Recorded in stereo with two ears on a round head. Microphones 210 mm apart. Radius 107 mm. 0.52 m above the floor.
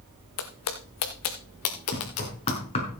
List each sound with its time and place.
0.4 s footsteps: 70° left (ahead or behind), 1.7 m; by 2.6 s 55° left (ahead or behind), 3 m
1.9 s knocking: 30° left (ahead or behind), 6 m